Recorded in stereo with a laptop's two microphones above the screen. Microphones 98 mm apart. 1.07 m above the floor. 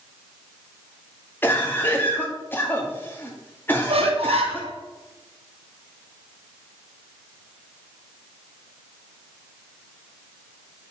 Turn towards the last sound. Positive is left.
turn(degrees=-85)